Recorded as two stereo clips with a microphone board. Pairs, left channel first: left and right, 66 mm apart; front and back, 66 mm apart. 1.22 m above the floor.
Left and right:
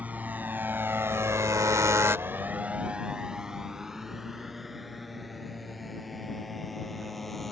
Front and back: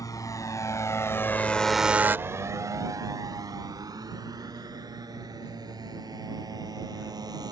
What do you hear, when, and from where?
0.0 s a motorcycle: 25° right; by 7.5 s straight behind